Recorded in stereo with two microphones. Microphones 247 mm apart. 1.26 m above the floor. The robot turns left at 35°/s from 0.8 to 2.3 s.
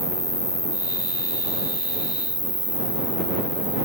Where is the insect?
65° left; by 3.9 s 15° left.